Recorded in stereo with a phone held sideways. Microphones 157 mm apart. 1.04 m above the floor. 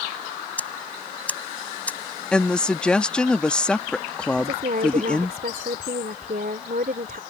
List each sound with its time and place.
0.6 s ticking: 10° left (ahead or behind)
2.3 s a woman speaking: 5° left (ahead or behind)
4.3 s a woman speaking: 70° right (ahead or behind)